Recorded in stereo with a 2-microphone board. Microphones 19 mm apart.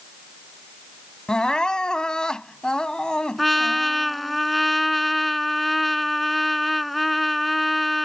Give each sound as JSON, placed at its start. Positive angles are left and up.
{"t": 1.3, "sound": "crying", "side_deg": 50}
{"t": 3.4, "sound": "a trumpet", "side_deg": 0}